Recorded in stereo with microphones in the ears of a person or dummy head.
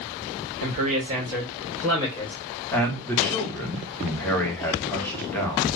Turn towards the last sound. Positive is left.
turn(degrees=5)  # may be behind; listen again after turning